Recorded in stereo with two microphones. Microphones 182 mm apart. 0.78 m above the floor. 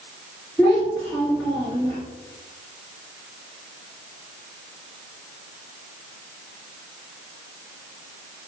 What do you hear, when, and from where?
0.6 s a child speaking: 5° left (ahead or behind), 1.2 m